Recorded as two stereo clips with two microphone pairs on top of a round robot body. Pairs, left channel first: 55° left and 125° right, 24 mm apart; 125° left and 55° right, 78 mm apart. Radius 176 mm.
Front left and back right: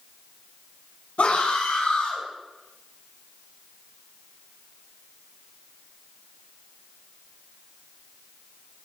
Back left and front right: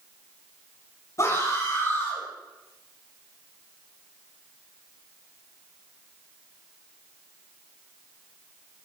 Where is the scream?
80° left, 6 m; by 2.2 s 70° left, 5.5 m.